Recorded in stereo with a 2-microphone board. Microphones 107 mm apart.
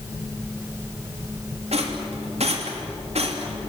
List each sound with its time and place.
1.7 s a rattle: 80° right, 3 m